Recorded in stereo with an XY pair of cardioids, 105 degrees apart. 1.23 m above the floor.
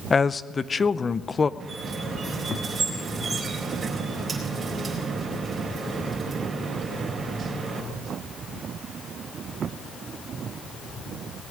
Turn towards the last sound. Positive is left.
turn(degrees=-30)